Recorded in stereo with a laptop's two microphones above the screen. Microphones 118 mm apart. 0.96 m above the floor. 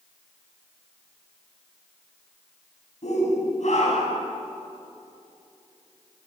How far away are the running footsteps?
No running footsteps in this recording.